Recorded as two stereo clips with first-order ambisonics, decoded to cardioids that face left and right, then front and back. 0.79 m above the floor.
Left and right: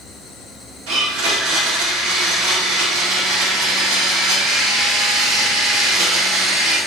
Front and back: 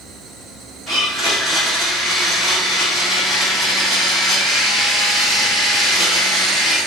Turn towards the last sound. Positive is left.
turn(degrees=-100)